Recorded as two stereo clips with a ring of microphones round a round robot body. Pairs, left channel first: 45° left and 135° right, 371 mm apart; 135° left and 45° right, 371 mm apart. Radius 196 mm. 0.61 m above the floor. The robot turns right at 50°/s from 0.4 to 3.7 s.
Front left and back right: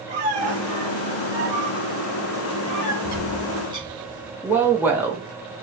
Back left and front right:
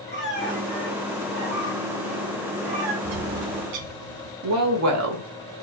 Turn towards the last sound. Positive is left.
turn(degrees=-50)